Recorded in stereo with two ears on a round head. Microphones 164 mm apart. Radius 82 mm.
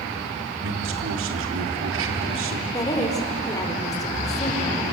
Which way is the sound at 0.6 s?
80° right.